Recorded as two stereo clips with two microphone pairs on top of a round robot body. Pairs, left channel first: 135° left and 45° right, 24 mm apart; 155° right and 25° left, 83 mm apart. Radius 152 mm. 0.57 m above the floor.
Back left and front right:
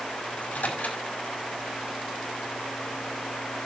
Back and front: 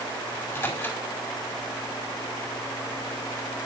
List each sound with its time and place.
0.3 s a microwave: 140° left, 5.5 m